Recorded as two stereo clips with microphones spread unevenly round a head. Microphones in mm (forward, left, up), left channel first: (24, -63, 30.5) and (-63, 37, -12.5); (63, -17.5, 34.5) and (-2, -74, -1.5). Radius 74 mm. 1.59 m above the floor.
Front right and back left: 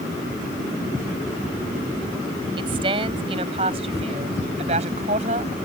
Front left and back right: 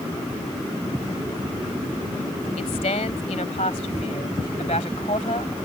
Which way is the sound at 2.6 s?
70° left.